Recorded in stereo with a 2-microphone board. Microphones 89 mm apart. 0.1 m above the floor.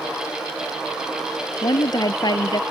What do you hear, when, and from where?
1.6 s a woman speaking: 50° left (ahead or behind)